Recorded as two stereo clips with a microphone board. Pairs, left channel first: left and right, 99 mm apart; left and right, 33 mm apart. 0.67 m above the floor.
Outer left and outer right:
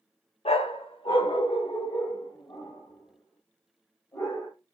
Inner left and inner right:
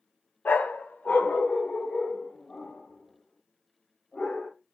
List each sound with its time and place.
0.5 s a dog barking: 70° left (ahead or behind), 0.6 m; by 4.5 s 35° left (ahead or behind), 2.5 m